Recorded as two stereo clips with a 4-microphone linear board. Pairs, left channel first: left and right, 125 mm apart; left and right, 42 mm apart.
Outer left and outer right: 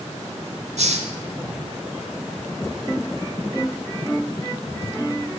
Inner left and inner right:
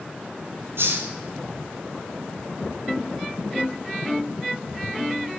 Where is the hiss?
75° right (ahead or behind), 1.5 m.